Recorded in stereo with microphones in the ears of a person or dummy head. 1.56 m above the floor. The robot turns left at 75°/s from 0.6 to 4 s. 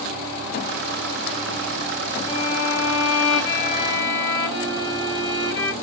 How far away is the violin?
About 1.5 m.